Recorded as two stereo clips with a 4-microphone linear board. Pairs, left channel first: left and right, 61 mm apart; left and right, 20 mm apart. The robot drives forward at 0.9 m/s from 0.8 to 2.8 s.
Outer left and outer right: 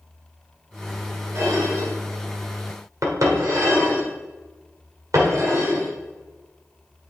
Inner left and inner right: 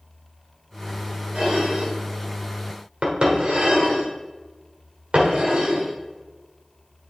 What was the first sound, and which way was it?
Dishes clattering, 60° right (ahead or behind).